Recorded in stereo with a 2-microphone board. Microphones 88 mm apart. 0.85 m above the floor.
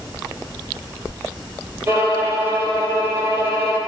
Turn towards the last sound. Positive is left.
turn(degrees=-25)  # may be behind; listen again after turning